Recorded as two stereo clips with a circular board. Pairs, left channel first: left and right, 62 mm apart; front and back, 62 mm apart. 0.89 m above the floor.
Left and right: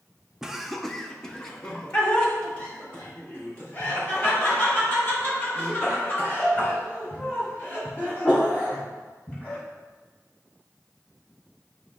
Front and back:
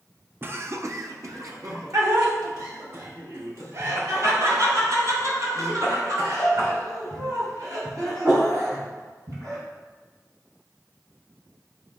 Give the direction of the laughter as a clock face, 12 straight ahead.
5 o'clock.